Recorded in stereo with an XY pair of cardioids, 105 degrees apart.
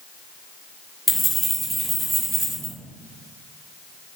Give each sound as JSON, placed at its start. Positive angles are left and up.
{"t": 1.1, "sound": "keys jangling", "azimuth_deg": -5, "distance_m": 0.9}